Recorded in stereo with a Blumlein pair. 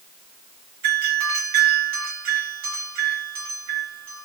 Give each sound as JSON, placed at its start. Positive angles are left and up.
{"t": 0.8, "sound": "a doorbell", "azimuth_deg": -50, "distance_m": 2.0}